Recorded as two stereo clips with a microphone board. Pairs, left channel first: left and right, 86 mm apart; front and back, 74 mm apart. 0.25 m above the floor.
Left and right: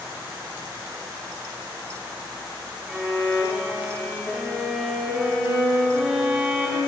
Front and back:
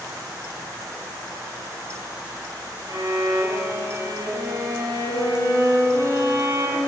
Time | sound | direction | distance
2.9 | a violin | 175° right | 3.5 m